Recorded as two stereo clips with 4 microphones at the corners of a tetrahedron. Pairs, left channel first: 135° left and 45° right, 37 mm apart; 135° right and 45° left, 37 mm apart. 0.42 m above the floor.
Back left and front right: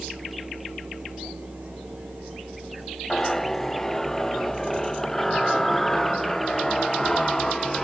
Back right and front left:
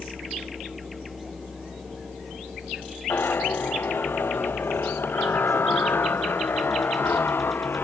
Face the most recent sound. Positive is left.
turn(degrees=-145)